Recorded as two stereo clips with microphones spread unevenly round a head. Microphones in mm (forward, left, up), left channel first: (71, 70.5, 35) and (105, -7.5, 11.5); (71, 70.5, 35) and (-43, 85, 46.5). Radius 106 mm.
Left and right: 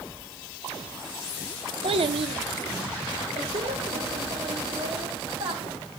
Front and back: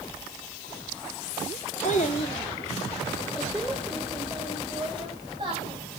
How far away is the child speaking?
About 1.2 m.